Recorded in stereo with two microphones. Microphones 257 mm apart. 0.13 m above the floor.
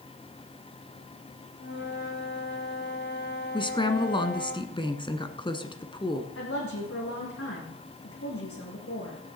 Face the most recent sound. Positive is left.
turn(degrees=60)  # may be behind; listen again after turning